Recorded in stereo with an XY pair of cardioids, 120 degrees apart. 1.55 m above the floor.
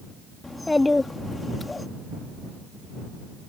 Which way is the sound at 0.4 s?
15° left.